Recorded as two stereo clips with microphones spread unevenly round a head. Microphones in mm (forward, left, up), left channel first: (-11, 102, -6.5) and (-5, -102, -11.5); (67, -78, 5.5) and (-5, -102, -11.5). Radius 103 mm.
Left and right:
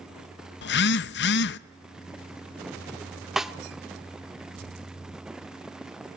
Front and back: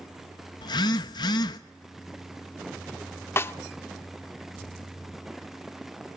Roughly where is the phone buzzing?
Ahead left.